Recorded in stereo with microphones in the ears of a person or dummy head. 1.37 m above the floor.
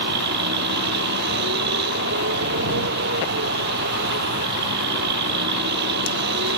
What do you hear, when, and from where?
0.0 s a vehicle: 60° right (ahead or behind)